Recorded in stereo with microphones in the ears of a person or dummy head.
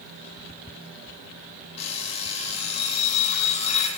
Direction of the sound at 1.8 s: 40° left (ahead or behind).